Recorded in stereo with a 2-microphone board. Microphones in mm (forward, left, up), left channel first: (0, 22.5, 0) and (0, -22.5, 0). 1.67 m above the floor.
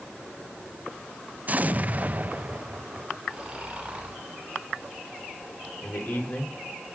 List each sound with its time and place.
1.5 s an explosion: 35° right (ahead or behind), 0.5 m
3.3 s snoring: 25° right (ahead or behind), 7.5 m
5.8 s a man speaking: 55° left (ahead or behind), 6 m